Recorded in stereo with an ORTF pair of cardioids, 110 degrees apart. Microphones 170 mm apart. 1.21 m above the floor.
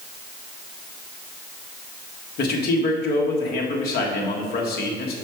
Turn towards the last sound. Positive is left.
turn(degrees=65)